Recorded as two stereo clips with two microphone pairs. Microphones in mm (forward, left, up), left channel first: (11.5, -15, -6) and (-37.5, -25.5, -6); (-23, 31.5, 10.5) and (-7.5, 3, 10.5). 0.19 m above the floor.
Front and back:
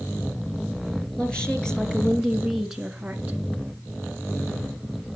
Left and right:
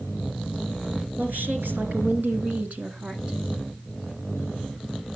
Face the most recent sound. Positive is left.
turn(degrees=-105)